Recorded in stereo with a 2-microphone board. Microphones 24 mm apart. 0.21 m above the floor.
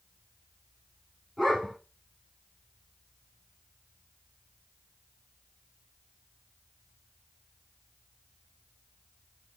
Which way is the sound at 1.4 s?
Centre (ahead or behind).